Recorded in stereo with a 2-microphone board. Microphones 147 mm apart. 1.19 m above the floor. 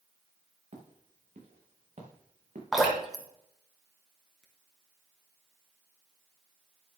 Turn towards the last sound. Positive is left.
turn(degrees=0)  # may be behind; listen again after turning